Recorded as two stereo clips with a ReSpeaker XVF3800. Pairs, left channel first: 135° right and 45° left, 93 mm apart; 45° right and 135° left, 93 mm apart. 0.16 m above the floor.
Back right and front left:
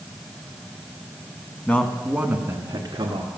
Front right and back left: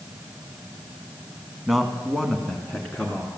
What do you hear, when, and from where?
1.7 s a man speaking: 145° right, 1.1 m; by 3.3 s 30° left, 1.9 m